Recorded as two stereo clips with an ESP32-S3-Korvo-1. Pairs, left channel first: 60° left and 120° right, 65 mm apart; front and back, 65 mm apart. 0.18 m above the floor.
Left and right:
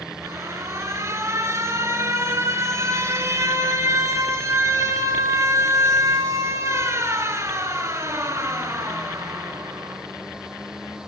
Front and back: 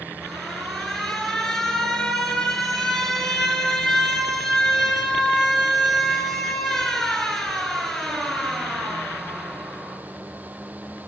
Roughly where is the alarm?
Right.